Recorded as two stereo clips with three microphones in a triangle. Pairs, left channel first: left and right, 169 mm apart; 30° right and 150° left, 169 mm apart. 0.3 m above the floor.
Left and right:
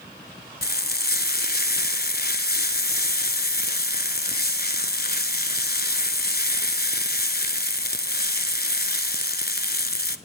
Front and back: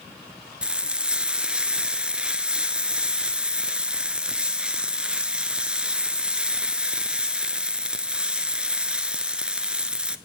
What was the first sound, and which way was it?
Frying, 65° left.